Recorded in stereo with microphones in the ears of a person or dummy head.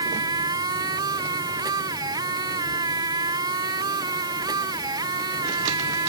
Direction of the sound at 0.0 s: 20° right (ahead or behind).